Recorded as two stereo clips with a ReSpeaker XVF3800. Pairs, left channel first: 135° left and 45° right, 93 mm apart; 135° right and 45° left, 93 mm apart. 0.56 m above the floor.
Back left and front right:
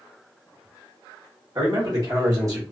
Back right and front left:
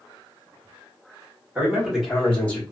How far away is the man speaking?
About 1.3 m.